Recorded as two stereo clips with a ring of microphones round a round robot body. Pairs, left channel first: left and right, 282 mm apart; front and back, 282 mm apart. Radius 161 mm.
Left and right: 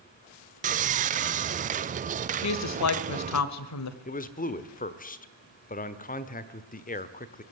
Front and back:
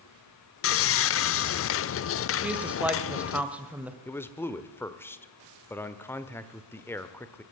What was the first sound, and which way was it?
Sawing, 30° right.